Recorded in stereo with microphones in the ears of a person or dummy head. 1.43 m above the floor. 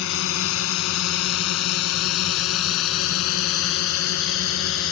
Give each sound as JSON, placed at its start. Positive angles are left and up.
{"t": 0.0, "sound": "a drone", "side_deg": 70}